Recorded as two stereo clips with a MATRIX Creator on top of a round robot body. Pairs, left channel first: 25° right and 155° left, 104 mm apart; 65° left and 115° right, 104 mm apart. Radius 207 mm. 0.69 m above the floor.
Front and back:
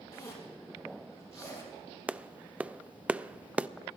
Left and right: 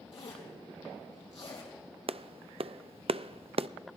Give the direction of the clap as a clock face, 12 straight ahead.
4 o'clock.